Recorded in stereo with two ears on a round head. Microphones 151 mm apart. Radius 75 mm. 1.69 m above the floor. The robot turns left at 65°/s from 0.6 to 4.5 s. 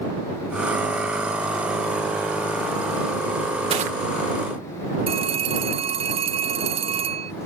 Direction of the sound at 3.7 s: 35° right (ahead or behind).